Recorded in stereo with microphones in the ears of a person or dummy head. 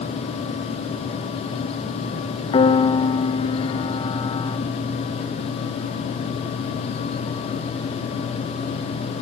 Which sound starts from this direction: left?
A piano, at 2.5 s.